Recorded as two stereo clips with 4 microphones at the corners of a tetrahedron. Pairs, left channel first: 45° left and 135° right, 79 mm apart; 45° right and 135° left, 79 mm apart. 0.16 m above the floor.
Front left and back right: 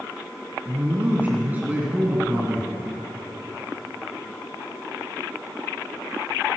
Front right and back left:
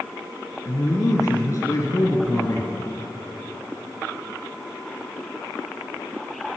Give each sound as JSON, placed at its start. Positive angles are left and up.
{"t": 0.7, "sound": "a man speaking", "azimuth_deg": -75, "distance_m": 2.0}